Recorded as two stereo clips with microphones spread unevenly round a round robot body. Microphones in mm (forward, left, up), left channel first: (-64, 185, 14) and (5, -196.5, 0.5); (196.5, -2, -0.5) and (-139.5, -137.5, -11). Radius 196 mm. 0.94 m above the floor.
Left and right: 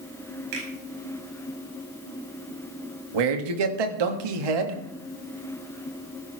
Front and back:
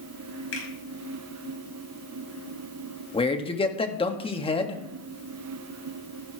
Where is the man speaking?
55° right, 1.8 m.